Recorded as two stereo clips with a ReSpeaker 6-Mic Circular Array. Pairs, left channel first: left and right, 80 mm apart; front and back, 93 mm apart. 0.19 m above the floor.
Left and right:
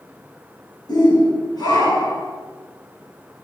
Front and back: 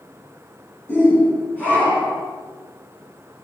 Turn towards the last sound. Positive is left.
turn(degrees=75)